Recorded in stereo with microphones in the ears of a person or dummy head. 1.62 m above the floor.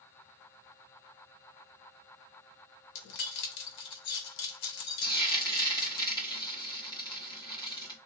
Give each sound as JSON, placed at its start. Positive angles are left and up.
{"t": 3.0, "sound": "keys jangling", "side_deg": 60, "distance_m": 0.9}
{"t": 5.0, "sound": "frying", "side_deg": 25, "distance_m": 1.4}